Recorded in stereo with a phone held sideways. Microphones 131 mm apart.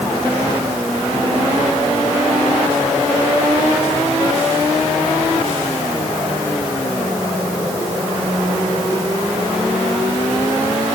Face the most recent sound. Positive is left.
No sound to turn to.